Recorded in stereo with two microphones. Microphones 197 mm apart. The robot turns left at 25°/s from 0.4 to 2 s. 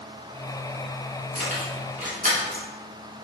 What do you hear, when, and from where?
1.4 s keys jangling: 45° right (ahead or behind), 1.2 m; by 2.6 s 40° right (ahead or behind), 1.2 m